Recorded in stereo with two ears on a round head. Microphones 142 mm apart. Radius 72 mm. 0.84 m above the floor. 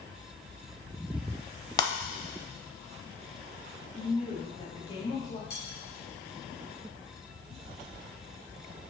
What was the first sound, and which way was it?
Breaking glass, 25° left (ahead or behind).